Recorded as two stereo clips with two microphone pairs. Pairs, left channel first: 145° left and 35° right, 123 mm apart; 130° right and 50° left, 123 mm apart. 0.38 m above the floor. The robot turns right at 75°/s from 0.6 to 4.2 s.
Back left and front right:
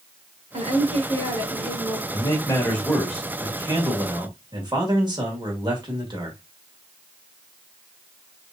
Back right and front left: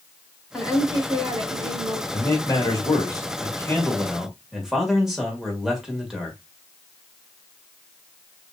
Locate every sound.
0.5 s a woman speaking: 40° right, 2 m; by 2.0 s 65° left, 2 m
2.1 s a man speaking: 165° left, 1.7 m; by 6.4 s 40° right, 1.7 m